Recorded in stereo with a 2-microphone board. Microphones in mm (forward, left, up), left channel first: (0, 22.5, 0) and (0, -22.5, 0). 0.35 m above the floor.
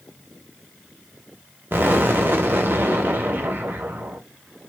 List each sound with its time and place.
1.7 s an explosion: 50° right (ahead or behind), 0.5 m